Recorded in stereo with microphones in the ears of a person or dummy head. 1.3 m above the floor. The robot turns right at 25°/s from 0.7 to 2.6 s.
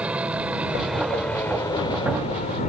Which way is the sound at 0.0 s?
5° right (ahead or behind).